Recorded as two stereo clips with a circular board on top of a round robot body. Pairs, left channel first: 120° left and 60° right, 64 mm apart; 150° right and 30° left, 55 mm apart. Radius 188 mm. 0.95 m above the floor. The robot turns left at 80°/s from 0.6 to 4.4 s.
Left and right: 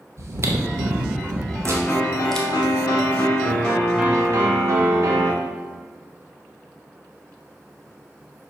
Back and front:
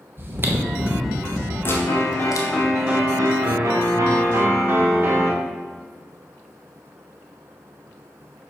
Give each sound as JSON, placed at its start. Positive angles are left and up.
{"t": 0.2, "sound": "chewing", "azimuth_deg": -20, "distance_m": 1.2}
{"t": 1.6, "sound": "a piano", "azimuth_deg": -160, "distance_m": 1.5}